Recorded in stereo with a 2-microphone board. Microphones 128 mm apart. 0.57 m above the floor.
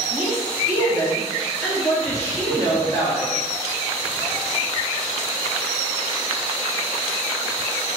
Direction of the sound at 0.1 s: 15° left (ahead or behind).